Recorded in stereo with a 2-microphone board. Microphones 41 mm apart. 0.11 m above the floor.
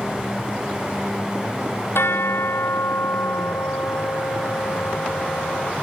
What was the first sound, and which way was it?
A bell, 75° left (ahead or behind).